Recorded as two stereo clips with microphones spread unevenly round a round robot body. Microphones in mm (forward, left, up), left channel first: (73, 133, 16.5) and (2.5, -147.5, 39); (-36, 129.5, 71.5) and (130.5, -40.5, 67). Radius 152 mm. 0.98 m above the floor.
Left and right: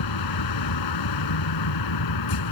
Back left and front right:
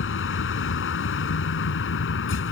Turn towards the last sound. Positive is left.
turn(degrees=100)